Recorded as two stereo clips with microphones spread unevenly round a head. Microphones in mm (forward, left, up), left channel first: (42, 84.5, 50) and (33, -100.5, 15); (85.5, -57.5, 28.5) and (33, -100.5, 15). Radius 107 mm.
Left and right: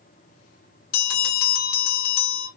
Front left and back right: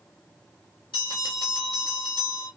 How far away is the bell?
About 0.7 m.